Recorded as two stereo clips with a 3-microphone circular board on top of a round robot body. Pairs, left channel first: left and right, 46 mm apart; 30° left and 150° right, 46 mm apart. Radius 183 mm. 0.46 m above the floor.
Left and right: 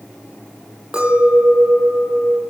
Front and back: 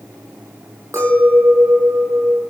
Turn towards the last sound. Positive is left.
turn(degrees=-165)